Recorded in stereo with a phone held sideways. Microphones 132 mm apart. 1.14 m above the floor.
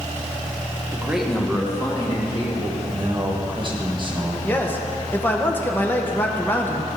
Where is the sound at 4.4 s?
15° left (ahead or behind), 0.9 m.